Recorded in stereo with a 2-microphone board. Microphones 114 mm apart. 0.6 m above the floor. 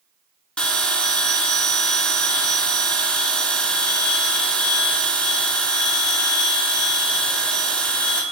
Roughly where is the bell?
Centre.